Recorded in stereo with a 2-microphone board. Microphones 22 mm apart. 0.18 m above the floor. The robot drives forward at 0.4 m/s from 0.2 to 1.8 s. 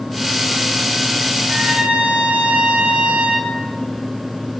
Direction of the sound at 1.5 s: 60° right (ahead or behind).